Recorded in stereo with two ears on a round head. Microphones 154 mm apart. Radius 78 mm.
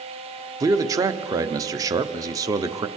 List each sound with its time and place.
0.6 s a man speaking: 20° right (ahead or behind), 0.9 m